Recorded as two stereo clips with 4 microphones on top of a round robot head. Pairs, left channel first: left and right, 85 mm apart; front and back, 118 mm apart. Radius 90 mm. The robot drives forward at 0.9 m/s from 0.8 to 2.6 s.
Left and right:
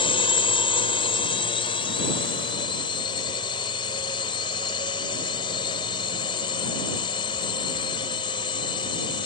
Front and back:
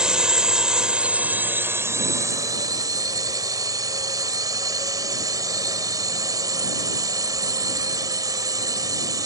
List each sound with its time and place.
0.0 s a drone: 100° left; by 9.3 s 125° left